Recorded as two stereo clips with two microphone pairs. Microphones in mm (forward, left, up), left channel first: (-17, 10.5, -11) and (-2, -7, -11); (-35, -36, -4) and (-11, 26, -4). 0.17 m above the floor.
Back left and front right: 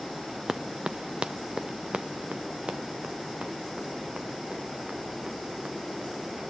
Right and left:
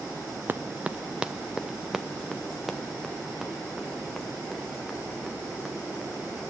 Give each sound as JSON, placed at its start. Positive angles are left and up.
{"t": 0.5, "sound": "running footsteps", "azimuth_deg": 10, "distance_m": 0.6}